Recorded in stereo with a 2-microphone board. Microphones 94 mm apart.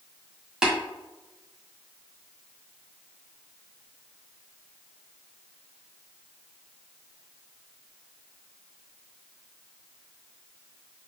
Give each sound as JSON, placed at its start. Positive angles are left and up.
{"t": 0.6, "sound": "tapping", "side_deg": -5, "distance_m": 1.8}